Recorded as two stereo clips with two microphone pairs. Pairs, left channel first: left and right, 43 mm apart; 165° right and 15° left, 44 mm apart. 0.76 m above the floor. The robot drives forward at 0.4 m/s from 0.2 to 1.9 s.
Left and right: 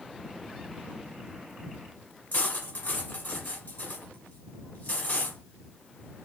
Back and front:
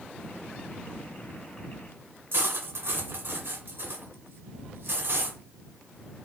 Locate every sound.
2.3 s cutlery clinking: 45° left, 1.5 m